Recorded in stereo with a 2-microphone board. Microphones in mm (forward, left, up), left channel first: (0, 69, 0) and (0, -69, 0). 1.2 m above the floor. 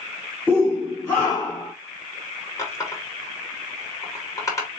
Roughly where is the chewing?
No chewing in this recording.